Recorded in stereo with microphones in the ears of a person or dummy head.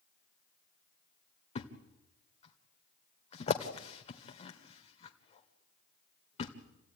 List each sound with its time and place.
1.6 s a thud: 35° left (ahead or behind), 1.9 m